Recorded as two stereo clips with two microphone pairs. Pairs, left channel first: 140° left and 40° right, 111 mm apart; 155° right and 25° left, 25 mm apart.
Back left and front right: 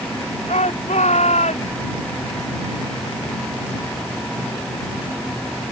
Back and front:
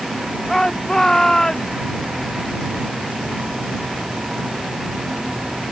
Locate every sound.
0.5 s a shout: 135° left